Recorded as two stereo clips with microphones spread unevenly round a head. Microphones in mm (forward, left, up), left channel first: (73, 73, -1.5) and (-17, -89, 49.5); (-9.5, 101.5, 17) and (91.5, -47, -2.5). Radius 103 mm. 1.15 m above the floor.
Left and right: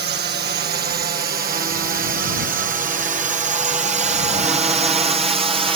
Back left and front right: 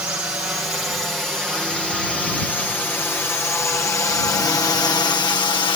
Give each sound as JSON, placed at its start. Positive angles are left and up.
{"t": 0.0, "sound": "a drone", "azimuth_deg": -135}